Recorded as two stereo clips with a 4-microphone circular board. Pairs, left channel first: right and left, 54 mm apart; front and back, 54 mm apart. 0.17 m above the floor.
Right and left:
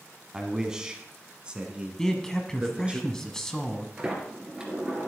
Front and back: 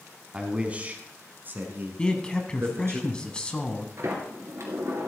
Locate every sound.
0.3 s a man speaking: 150° left, 1.2 m; by 3.0 s 155° left, 2 m
2.0 s a man speaking: 30° right, 1.0 m
4.0 s a sliding door: 160° left, 2 m